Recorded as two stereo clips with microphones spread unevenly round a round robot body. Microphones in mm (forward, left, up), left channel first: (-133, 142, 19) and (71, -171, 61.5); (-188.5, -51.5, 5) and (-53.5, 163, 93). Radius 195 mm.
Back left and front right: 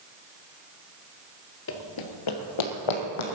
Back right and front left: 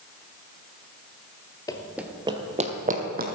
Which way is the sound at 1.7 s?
135° left.